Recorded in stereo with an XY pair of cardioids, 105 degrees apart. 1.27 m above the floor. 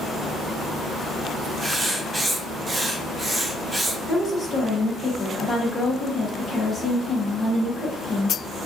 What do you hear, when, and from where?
1.6 s writing: 20° right, 0.7 m
4.1 s a woman speaking: 30° left, 1.3 m